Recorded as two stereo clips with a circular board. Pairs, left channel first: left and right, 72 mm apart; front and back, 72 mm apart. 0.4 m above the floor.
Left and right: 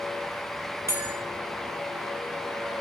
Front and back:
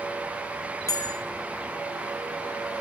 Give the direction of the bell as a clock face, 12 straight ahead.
1 o'clock.